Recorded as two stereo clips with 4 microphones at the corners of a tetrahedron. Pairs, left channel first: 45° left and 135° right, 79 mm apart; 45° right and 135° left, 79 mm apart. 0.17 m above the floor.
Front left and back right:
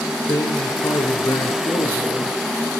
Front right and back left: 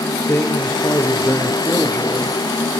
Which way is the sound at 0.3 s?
15° left.